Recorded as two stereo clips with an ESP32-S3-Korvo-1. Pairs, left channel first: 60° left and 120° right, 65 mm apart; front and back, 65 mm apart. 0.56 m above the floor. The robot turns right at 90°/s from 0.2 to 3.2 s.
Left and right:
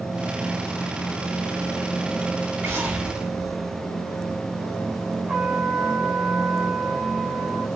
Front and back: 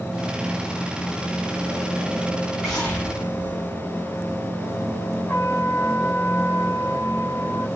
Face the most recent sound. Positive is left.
turn(degrees=-45)